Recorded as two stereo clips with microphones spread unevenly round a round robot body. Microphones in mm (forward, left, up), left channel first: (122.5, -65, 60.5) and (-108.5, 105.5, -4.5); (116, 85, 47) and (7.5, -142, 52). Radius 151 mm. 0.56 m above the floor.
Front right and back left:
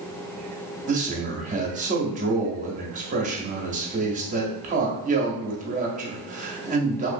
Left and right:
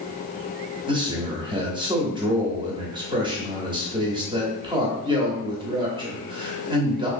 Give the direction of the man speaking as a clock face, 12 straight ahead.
6 o'clock.